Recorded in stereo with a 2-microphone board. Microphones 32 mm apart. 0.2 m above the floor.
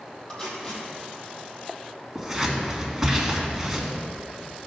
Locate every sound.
0.3 s tape being pulled: 20° left (ahead or behind), 3 m
2.1 s scissors: 10° right (ahead or behind), 2 m